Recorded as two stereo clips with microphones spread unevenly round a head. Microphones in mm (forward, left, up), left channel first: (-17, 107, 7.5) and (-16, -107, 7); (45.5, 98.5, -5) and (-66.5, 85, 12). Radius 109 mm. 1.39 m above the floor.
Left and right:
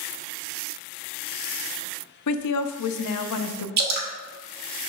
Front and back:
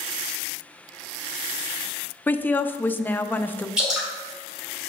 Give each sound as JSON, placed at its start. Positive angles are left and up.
{"t": 2.3, "sound": "a woman speaking", "azimuth_deg": 85, "distance_m": 0.6}
{"t": 3.8, "sound": "dripping", "azimuth_deg": -100, "distance_m": 1.2}